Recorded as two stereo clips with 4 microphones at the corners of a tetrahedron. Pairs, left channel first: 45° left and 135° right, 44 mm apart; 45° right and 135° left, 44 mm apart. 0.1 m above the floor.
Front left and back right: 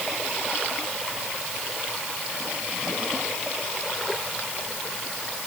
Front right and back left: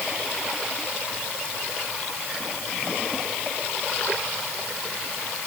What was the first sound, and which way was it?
Only background noise.